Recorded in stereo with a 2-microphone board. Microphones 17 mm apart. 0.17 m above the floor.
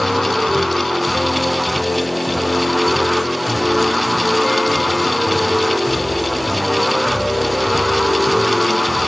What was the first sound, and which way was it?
Only background noise.